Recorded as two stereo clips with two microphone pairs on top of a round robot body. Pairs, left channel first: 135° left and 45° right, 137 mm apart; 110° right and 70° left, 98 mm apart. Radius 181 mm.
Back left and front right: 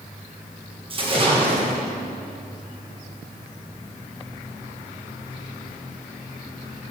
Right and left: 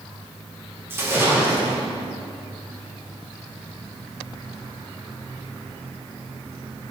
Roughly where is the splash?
Ahead.